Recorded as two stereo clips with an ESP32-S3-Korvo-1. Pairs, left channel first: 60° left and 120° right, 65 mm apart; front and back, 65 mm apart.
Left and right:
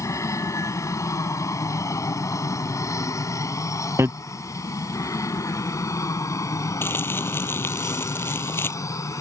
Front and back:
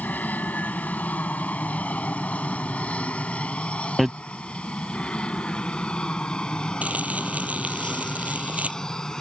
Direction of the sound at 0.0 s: 60° left.